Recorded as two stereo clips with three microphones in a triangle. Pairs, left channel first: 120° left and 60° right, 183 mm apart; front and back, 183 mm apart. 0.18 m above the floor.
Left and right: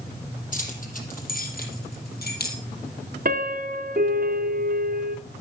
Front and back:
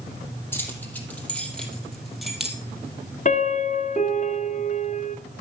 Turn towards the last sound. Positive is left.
turn(degrees=-35)